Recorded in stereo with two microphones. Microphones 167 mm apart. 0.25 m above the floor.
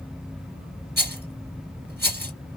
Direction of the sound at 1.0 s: 70° right (ahead or behind).